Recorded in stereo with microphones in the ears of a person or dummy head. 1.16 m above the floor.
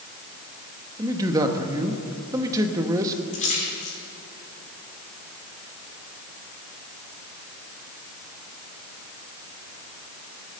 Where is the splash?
40° left (ahead or behind), 4.5 m.